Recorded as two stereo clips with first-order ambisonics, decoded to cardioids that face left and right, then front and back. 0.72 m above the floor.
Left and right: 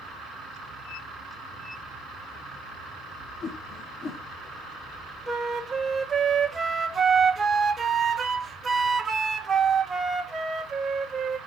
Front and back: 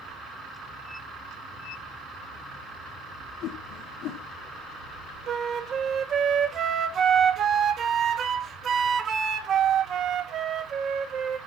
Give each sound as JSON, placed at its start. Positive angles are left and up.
{"t": 3.4, "sound": "a whoosh", "azimuth_deg": 25, "distance_m": 1.2}
{"t": 5.3, "sound": "a flute", "azimuth_deg": -155, "distance_m": 0.9}